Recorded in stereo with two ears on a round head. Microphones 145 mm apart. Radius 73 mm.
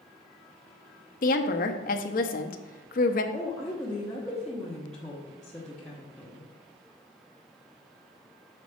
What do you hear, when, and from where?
1.2 s a woman speaking: 55° left (ahead or behind), 0.9 m
3.3 s a woman speaking: 5° left (ahead or behind), 1.3 m